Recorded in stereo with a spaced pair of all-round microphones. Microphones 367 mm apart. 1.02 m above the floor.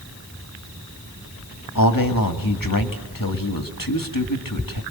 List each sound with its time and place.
1.8 s a man speaking: 60° left (ahead or behind), 2 m